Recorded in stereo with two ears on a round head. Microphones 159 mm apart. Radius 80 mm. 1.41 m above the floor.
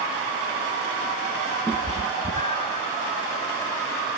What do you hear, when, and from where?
1.7 s a cat meowing: 10° left (ahead or behind), 1.0 m; by 2.8 s 35° left (ahead or behind), 1.4 m